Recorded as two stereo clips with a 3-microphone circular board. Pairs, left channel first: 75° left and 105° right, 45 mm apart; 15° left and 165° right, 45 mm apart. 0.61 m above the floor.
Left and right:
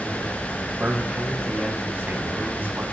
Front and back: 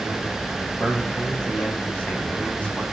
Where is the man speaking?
45° right, 5 m.